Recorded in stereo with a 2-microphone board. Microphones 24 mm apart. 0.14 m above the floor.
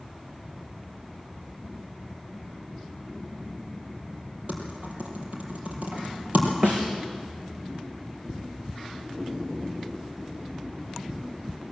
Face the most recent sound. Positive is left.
turn(degrees=-50)  # may be behind; listen again after turning